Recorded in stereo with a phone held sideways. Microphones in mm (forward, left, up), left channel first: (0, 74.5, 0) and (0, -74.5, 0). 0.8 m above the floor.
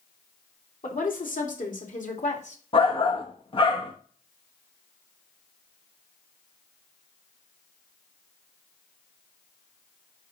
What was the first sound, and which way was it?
A woman speaking, 70° left (ahead or behind).